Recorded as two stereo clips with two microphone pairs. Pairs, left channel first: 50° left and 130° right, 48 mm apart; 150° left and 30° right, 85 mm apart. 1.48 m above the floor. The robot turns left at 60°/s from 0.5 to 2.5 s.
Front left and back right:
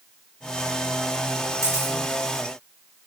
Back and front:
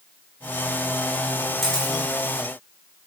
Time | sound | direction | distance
1.6 | a camera shutter | 125° right | 2 m